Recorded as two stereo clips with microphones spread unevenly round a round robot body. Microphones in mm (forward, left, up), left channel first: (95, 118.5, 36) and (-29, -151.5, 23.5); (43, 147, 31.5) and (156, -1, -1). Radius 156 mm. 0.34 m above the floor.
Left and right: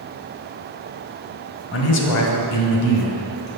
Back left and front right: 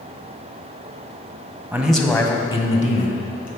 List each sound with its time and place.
1.7 s a man speaking: 20° left, 1.7 m; by 3.6 s 85° left, 3 m